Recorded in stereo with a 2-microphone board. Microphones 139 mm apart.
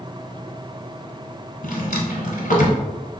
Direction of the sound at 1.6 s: 70° left (ahead or behind).